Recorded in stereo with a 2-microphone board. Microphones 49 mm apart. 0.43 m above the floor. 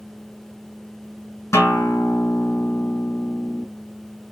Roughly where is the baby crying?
I don't hear a baby crying.